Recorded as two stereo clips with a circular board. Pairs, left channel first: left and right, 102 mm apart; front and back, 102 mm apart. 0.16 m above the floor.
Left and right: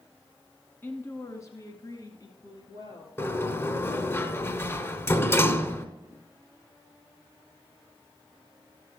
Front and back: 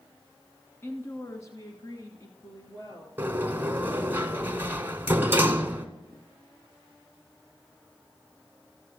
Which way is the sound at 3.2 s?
130° left.